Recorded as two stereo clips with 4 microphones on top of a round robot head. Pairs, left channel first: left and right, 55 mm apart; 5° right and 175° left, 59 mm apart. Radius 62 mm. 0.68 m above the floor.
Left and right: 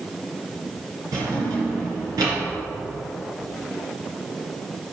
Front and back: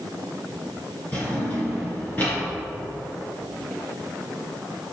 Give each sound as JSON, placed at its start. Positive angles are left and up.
{"t": 1.1, "sound": "a drawer", "azimuth_deg": -75, "distance_m": 3.0}